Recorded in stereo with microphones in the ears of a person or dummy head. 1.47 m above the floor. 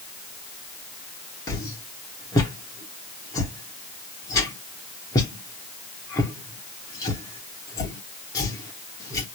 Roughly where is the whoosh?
Centre.